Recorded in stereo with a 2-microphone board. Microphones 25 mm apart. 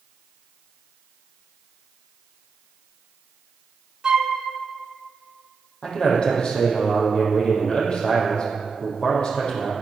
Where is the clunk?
I don't hear a clunk.